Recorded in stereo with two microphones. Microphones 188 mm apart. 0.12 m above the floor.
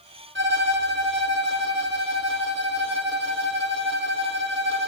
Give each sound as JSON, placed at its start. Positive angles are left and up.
{"t": 0.3, "sound": "a violin", "side_deg": -80, "distance_m": 1.1}